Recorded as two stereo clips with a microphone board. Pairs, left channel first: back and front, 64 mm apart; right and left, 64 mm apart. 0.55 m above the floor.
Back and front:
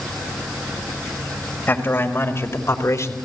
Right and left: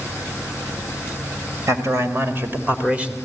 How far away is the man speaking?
About 3.5 m.